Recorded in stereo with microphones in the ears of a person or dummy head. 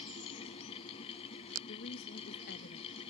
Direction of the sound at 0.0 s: 35° left (ahead or behind).